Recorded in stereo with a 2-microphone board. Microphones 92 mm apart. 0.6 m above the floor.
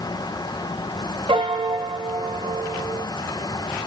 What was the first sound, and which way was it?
A piano, 65° right (ahead or behind).